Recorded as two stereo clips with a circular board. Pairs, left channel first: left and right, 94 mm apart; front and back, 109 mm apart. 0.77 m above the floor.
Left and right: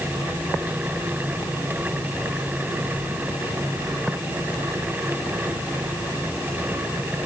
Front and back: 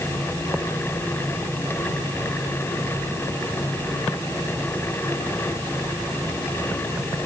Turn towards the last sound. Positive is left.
No sound to turn to.